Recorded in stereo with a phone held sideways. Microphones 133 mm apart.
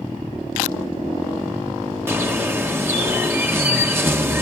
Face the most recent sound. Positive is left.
turn(degrees=-15)  # may be behind; listen again after turning